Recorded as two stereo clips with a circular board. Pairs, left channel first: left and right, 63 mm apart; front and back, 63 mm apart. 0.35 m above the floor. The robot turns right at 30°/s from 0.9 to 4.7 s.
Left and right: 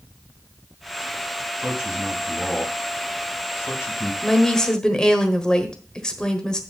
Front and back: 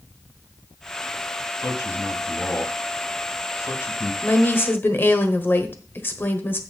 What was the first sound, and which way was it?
A man speaking, 20° right.